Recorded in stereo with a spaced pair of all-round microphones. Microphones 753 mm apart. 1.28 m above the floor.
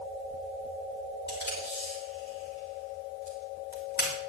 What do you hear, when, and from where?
1.3 s tape being pulled: 15° left (ahead or behind), 4.5 m